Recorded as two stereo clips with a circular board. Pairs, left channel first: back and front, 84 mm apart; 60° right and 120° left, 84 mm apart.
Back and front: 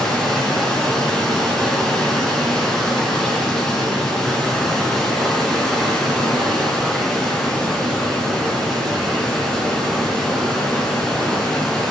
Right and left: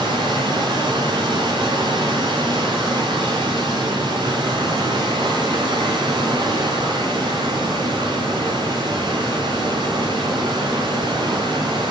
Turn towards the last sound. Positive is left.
turn(degrees=95)